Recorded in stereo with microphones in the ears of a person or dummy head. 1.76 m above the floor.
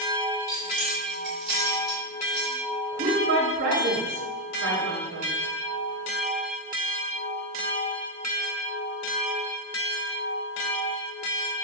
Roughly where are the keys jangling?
Right.